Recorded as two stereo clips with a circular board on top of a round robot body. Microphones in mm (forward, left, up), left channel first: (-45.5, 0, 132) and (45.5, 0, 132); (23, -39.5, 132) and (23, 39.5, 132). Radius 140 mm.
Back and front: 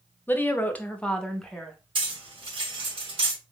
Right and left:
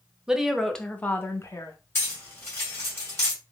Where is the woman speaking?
155° left, 1.0 m; by 1.8 s 95° right, 1.1 m.